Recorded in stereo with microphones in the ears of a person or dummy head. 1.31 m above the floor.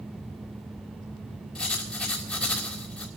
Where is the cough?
No cough in this recording.